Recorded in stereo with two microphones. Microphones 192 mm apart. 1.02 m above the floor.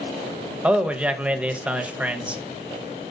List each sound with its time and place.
0.6 s a man speaking: 5° right (ahead or behind), 0.8 m